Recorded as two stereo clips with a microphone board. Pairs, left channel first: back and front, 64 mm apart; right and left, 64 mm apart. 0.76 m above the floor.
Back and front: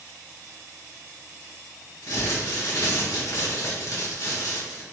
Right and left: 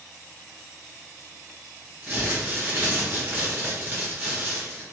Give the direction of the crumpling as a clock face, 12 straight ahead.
7 o'clock.